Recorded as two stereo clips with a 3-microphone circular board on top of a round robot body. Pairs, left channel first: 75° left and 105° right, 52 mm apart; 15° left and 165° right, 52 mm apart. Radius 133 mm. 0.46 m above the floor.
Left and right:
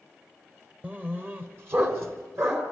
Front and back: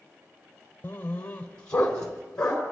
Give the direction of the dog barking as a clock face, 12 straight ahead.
1 o'clock.